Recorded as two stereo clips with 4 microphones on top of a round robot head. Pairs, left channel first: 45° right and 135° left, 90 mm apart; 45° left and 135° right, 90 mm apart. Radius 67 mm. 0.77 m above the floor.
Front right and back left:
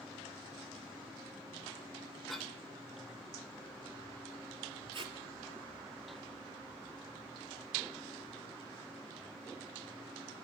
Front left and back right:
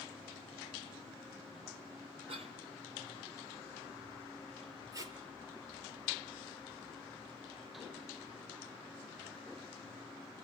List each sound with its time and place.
2.3 s a cough: 130° right, 3.5 m
4.9 s tape being pulled: 170° left, 3 m